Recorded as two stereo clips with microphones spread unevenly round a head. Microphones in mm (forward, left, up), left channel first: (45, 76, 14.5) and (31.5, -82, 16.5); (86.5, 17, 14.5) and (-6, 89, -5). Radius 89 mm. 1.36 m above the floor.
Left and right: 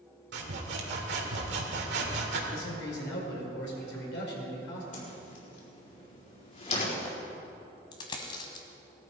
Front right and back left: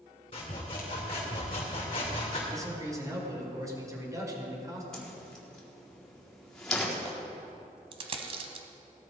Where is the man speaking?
80° left, 5 m.